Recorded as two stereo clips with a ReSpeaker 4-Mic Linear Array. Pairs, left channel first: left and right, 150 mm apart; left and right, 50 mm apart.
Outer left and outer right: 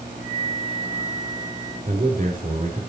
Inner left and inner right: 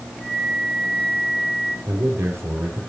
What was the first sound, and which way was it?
A flute, 25° right (ahead or behind).